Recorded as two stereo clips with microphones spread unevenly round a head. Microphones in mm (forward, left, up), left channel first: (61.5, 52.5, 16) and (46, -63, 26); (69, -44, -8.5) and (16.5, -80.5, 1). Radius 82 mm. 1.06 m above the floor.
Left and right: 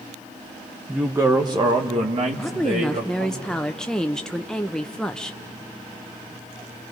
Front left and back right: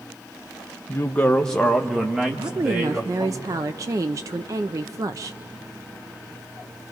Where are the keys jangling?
No keys jangling in this recording.